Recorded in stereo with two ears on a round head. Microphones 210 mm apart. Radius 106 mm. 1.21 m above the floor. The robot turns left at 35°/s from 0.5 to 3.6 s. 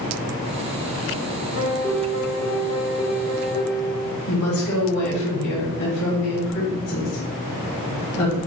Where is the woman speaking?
80° left, 1.7 m.